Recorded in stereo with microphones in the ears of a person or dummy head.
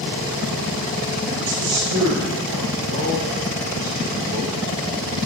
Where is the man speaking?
75° right (ahead or behind), 3.5 m.